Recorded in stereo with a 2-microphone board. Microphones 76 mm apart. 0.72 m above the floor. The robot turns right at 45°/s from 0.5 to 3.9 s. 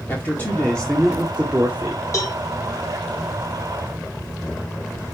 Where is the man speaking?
155° left, 2 m; by 2.0 s 135° right, 2 m.